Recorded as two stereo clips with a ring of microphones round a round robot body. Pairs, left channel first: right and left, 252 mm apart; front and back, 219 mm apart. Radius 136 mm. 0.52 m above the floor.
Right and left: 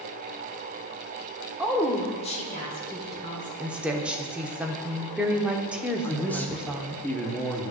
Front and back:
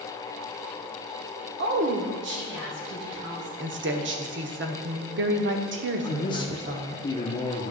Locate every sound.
1.6 s a woman speaking: 175° left, 1.3 m; by 3.5 s 135° right, 3.5 m
3.6 s a woman speaking: 175° left, 1.1 m
6.0 s a man speaking: 20° right, 1.1 m